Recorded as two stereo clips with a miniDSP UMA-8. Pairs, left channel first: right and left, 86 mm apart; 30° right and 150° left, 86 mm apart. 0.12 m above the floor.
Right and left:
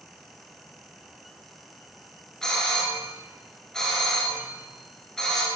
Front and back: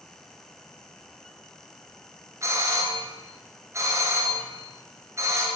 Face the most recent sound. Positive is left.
turn(degrees=-170)